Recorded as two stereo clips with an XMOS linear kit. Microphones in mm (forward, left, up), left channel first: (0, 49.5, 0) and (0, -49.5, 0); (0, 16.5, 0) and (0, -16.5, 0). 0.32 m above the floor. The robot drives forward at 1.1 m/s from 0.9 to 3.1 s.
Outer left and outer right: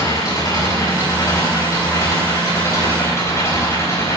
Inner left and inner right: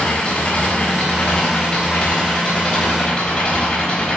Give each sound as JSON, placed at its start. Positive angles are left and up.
{"t": 0.0, "sound": "an engine running", "side_deg": 45, "distance_m": 6.0}